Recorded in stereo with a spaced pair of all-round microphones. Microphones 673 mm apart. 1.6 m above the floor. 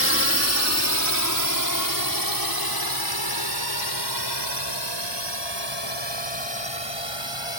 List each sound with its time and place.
0.0 s a drone: 20° left (ahead or behind); by 7.6 s 40° left (ahead or behind)